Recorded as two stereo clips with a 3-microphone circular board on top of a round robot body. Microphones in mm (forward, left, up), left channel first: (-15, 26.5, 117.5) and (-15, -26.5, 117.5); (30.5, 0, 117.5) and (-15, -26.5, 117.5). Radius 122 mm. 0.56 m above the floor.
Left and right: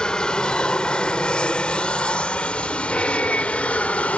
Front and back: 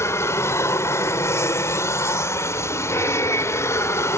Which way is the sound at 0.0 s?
15° left.